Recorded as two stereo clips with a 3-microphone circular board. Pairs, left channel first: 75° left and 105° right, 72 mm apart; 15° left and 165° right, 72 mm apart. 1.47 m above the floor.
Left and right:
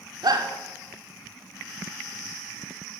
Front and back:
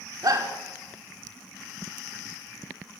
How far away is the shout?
About 5.5 m.